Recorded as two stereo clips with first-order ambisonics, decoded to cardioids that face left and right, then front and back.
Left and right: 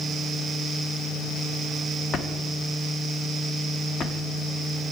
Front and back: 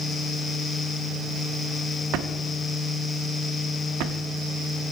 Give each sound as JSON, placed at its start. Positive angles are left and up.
{"t": 2.1, "sound": "a drawer", "azimuth_deg": 155, "distance_m": 0.6}